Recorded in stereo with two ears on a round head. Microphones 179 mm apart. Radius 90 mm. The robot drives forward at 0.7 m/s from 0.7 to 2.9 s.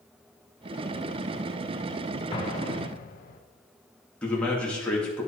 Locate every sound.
2.3 s an explosion: 25° left (ahead or behind), 1.0 m; by 3.4 s 40° left (ahead or behind), 0.7 m
4.2 s a man speaking: 5° left (ahead or behind), 2 m